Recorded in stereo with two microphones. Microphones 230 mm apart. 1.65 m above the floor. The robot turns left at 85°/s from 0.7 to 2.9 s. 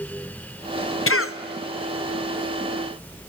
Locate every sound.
1.1 s a cough: 65° left (ahead or behind), 0.7 m